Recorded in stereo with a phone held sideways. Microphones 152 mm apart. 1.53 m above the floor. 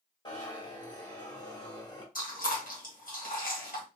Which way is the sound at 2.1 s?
65° left (ahead or behind).